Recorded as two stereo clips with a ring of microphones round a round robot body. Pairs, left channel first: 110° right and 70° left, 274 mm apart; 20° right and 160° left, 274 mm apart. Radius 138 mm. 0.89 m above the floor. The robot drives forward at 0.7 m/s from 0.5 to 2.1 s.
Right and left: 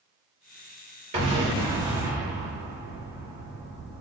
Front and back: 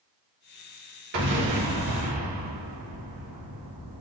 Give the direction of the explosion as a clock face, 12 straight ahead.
8 o'clock.